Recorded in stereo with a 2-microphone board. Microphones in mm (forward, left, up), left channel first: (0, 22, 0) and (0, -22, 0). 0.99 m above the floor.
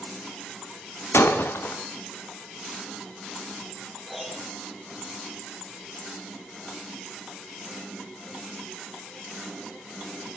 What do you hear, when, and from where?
1.1 s breaking glass: 75° left (ahead or behind), 1.7 m
4.1 s a piano: 5° left (ahead or behind), 5.5 m